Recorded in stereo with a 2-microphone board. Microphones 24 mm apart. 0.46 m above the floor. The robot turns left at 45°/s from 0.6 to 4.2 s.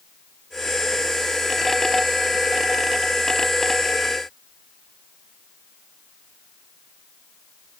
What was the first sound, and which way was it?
Only background noise.